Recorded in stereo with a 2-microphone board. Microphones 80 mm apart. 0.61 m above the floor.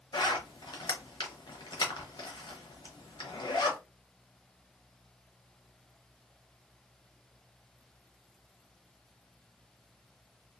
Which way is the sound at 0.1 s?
70° left (ahead or behind).